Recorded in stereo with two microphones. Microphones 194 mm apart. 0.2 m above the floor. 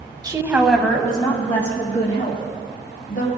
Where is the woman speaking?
20° right (ahead or behind), 1.1 m; by 3.3 s 50° left (ahead or behind), 3 m.